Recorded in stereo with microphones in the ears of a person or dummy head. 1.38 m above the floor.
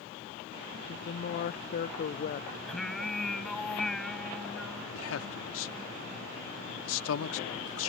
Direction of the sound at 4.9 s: 80° left.